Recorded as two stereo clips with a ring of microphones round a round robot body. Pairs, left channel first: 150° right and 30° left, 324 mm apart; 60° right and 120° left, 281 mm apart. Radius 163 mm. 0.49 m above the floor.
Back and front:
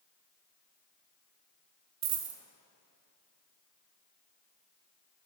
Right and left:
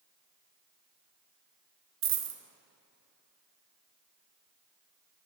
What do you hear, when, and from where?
2.0 s a dropped coin: 75° left, 0.5 m